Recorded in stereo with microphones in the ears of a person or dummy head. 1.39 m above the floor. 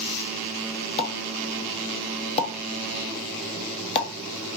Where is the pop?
30° left (ahead or behind), 0.9 m.